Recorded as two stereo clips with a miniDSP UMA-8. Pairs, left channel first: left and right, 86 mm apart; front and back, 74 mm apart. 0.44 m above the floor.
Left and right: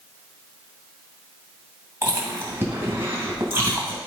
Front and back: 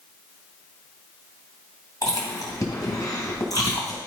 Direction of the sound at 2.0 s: 30° right.